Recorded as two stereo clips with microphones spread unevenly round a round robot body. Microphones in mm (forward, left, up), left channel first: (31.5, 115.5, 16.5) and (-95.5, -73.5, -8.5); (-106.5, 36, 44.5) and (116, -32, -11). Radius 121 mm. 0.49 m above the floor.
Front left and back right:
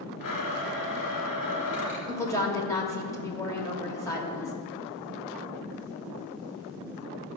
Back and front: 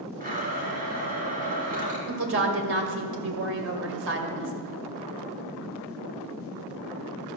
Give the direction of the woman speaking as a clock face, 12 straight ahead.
1 o'clock.